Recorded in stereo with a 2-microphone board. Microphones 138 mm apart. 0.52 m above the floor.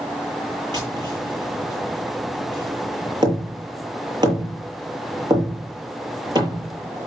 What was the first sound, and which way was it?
Tapping, 30° right (ahead or behind).